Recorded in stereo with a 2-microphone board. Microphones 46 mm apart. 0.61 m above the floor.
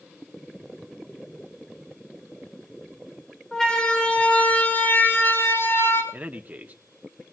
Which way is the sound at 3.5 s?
10° left (ahead or behind).